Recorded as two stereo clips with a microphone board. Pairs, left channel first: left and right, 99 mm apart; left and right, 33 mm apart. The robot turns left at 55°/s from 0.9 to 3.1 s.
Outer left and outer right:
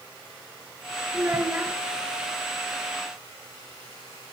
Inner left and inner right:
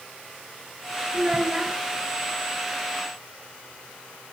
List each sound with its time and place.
1.1 s a child speaking: 25° right (ahead or behind), 1.2 m; by 1.8 s 10° right (ahead or behind), 1.2 m